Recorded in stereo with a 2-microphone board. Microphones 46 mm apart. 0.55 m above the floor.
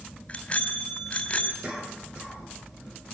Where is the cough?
25° right (ahead or behind), 8.5 m.